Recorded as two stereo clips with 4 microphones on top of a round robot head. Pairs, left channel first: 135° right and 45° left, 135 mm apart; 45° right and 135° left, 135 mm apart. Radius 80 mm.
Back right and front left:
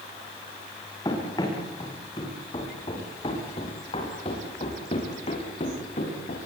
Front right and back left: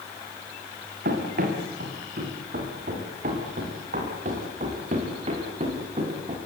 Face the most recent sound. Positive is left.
turn(degrees=-175)